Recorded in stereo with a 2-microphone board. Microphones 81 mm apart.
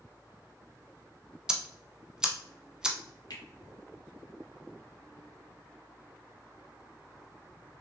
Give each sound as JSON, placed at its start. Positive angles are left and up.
{"t": 1.5, "sound": "ticking", "side_deg": -10, "distance_m": 0.6}
{"t": 3.3, "sound": "a finger snap", "side_deg": 55, "distance_m": 1.5}